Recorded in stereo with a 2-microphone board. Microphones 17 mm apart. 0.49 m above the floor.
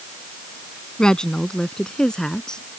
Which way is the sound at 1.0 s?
45° left (ahead or behind).